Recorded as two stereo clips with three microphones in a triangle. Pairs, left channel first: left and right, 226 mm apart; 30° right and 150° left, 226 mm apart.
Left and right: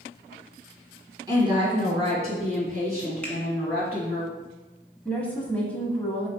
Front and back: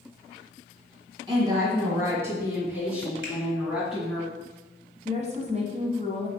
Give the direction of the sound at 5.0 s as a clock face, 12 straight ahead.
6 o'clock.